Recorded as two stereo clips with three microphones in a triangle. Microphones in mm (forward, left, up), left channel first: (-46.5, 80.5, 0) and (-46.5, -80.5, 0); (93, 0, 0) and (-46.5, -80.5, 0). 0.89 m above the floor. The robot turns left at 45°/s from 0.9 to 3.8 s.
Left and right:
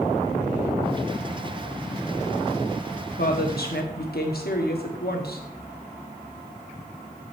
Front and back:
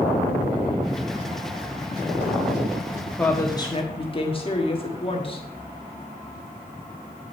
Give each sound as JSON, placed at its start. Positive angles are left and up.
{"t": 3.2, "sound": "a woman speaking", "azimuth_deg": 110, "distance_m": 1.4}